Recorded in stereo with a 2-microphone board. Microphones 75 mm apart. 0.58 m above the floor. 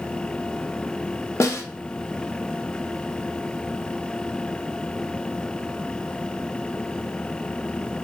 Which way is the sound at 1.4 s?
40° left (ahead or behind).